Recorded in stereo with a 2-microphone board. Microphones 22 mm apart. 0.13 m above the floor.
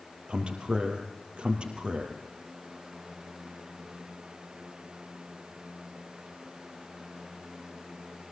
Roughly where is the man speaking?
Right.